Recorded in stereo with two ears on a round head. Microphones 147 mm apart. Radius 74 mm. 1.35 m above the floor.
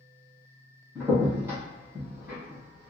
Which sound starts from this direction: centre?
A crack, at 0.9 s.